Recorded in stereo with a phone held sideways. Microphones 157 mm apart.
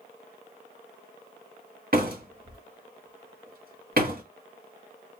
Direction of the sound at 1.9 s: 65° right (ahead or behind).